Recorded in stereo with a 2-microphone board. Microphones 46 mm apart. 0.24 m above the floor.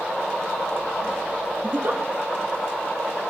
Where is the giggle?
45° right (ahead or behind), 0.7 m.